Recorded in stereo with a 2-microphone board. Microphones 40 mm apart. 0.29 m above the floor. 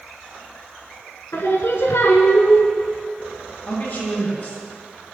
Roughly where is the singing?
Left.